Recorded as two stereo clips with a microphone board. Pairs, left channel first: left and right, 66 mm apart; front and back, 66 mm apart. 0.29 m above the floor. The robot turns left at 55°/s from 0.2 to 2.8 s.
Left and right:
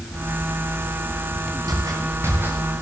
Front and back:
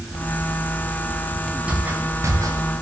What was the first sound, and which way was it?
Footsteps, 105° right.